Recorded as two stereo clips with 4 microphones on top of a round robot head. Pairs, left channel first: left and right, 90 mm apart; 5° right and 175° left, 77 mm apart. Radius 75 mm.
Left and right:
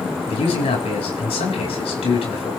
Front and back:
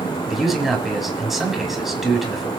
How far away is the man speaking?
About 6.5 m.